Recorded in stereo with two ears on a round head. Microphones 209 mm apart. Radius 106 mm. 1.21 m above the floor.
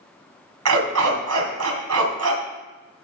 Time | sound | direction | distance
0.7 | a dog barking | 75° right (ahead or behind) | 2.5 m